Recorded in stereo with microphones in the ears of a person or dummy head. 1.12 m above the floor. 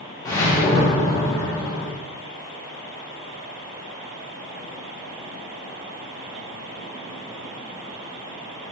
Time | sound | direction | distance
0.2 | a whoosh | 20° left (ahead or behind) | 1.0 m